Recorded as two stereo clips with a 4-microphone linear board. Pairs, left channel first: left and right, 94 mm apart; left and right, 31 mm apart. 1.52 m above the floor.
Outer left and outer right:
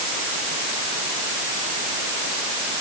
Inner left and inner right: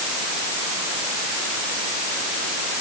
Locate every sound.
Only background noise.